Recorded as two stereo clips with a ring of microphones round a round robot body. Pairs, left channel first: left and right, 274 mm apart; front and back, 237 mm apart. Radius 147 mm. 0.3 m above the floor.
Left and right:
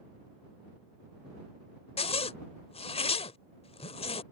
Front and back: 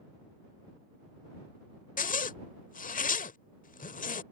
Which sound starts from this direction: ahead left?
A zipper, at 2.0 s.